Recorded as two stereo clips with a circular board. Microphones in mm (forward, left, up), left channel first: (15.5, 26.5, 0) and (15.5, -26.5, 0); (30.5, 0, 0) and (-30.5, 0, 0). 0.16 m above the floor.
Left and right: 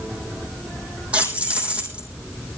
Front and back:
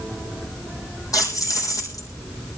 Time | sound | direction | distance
1.1 | keys jangling | 25° right | 4 m